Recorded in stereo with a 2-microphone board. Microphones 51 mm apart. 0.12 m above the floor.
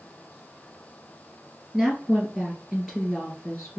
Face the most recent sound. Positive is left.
turn(degrees=-5)  # may be behind; listen again after turning